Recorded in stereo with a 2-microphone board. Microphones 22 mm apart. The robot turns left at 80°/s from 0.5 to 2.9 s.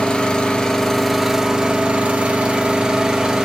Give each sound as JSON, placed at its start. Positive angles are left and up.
{"t": 0.0, "sound": "an engine running", "azimuth_deg": 45, "distance_m": 1.4}